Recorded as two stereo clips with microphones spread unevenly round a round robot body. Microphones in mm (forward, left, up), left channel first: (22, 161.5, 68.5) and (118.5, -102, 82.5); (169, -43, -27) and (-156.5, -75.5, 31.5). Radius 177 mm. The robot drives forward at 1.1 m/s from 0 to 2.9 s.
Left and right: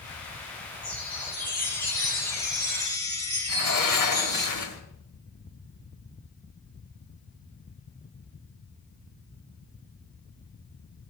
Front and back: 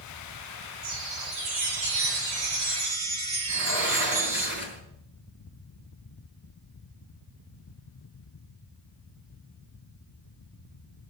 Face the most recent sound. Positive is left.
turn(degrees=125)